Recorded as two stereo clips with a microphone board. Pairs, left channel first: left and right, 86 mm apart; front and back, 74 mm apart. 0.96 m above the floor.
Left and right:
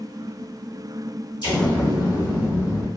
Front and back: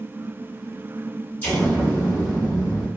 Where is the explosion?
65° left, 1.3 m.